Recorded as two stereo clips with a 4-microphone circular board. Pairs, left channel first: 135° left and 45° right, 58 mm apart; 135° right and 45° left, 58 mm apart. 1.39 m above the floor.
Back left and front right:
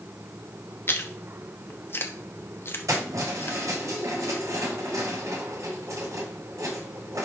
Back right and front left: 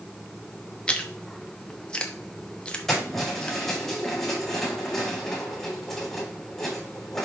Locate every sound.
0.9 s chewing: 155° left, 0.9 m
2.9 s keys jangling: 50° right, 5 m